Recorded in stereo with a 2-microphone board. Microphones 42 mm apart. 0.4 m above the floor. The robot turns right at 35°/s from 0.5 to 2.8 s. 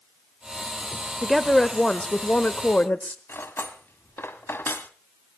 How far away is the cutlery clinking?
About 1.7 m.